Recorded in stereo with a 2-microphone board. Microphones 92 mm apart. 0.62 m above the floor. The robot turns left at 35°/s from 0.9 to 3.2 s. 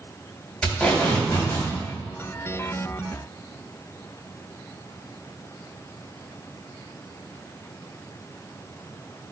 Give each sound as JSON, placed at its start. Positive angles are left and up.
{"t": 0.6, "sound": "tape being pulled", "side_deg": 10, "distance_m": 3.0}